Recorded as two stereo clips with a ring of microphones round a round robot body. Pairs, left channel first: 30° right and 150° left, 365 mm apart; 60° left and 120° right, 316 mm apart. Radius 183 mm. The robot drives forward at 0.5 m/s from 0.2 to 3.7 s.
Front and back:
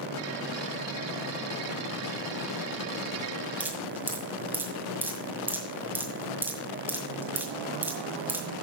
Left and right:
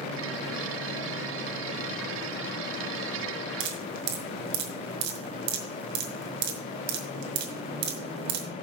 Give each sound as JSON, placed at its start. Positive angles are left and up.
{"t": 3.6, "sound": "dripping", "azimuth_deg": -125, "distance_m": 1.9}